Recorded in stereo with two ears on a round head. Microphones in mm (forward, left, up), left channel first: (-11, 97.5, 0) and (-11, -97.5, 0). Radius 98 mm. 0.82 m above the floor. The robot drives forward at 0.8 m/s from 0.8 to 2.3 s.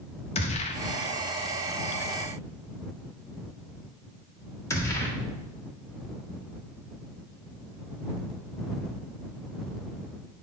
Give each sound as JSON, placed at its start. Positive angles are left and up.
{"t": 0.3, "sound": "a gunshot", "side_deg": 30, "distance_m": 0.9}